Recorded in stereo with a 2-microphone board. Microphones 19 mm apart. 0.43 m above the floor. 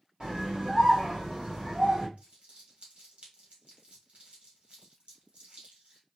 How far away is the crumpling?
About 2 m.